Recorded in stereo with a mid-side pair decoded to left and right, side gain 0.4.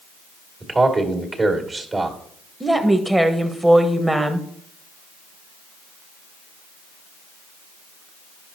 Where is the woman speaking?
10° right, 1.3 m.